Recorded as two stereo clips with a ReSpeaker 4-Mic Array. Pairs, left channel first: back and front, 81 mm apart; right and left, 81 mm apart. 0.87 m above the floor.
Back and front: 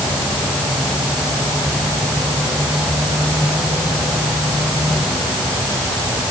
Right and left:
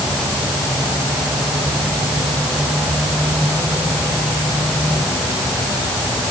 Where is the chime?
No chime in this recording.